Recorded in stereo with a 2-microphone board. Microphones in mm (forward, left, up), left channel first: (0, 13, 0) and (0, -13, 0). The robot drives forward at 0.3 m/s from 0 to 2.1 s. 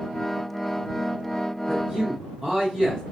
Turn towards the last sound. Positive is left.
turn(degrees=-15)  # may be behind; listen again after turning